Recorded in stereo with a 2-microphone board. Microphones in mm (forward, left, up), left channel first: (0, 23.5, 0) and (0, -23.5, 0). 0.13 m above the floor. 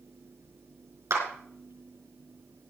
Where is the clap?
75° right (ahead or behind), 4.5 m.